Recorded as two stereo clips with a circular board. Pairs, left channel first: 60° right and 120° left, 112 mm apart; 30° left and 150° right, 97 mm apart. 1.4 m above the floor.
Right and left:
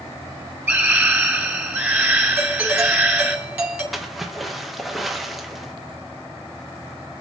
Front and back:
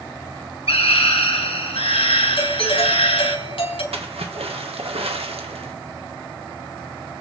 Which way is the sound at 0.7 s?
45° left.